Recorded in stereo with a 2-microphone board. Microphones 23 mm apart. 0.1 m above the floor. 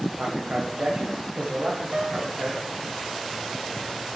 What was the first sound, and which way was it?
A man speaking, 65° right (ahead or behind).